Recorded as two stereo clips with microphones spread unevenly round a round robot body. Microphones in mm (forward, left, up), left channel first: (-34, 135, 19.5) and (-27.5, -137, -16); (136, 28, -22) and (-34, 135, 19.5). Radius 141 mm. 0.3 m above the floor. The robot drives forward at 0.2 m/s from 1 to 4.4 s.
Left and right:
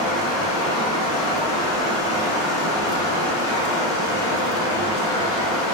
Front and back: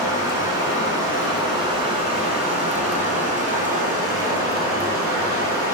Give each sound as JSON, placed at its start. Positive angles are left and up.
{"t": 0.0, "sound": "running water", "azimuth_deg": 70, "distance_m": 1.1}